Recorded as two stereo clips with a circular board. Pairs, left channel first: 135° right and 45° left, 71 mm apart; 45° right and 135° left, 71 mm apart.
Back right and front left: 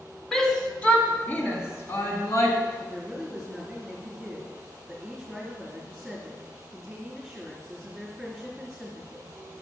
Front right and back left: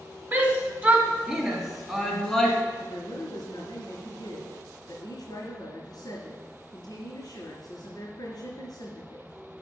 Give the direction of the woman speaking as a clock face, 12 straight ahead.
2 o'clock.